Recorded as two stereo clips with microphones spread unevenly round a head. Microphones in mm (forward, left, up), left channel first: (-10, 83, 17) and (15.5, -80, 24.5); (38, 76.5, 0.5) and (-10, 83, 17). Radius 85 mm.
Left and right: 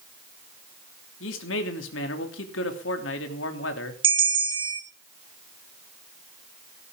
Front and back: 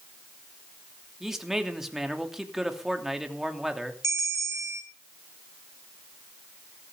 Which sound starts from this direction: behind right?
A bell, at 4.0 s.